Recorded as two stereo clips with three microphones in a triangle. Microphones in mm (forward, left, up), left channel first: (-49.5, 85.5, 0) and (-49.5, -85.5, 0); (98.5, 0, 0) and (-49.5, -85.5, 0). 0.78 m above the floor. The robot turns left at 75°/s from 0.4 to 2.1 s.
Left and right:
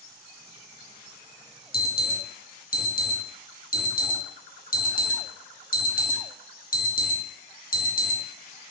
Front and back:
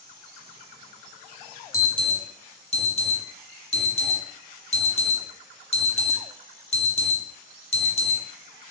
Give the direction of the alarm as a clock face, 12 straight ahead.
9 o'clock.